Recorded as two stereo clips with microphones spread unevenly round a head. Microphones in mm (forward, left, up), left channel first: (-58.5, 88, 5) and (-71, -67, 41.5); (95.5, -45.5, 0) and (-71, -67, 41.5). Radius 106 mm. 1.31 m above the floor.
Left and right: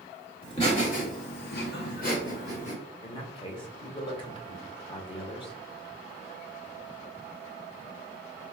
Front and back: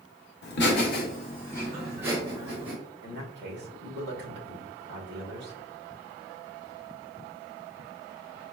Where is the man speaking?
145° left, 1.1 m.